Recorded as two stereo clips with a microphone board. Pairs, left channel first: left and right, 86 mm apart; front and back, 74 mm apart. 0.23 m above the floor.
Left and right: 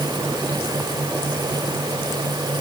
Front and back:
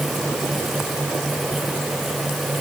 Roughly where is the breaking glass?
No breaking glass in this recording.